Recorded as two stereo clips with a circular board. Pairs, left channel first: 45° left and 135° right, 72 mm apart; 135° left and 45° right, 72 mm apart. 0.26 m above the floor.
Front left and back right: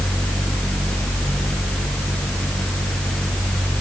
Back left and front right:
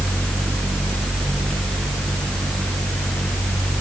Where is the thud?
I don't hear a thud.